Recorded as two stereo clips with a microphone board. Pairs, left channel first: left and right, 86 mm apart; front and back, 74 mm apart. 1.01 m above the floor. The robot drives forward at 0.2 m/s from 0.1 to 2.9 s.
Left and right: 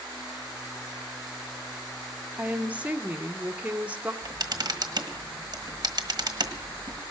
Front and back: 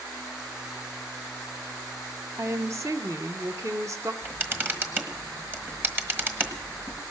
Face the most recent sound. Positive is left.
turn(degrees=-120)